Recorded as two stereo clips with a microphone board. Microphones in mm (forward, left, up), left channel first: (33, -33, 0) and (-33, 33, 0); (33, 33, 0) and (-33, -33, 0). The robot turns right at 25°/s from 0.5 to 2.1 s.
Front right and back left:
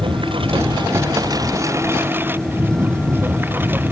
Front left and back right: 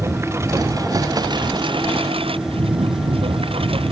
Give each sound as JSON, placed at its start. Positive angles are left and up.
{"t": 0.0, "sound": "a lawn mower", "azimuth_deg": 165}